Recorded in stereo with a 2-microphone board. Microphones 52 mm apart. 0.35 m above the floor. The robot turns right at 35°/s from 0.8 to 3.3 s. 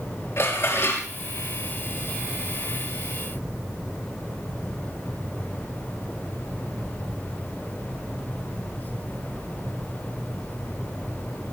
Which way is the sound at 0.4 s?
55° left (ahead or behind).